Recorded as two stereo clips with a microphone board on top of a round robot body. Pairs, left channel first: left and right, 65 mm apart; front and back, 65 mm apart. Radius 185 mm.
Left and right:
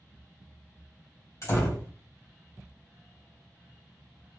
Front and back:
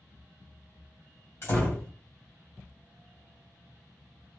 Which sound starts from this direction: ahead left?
A door slam, at 1.4 s.